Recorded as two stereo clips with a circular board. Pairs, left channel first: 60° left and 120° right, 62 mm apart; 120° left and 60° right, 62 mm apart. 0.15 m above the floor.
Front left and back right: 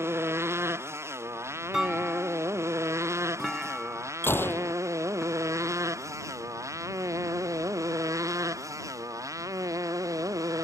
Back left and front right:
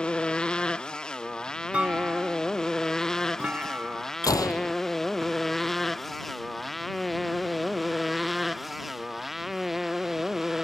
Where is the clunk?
40° right.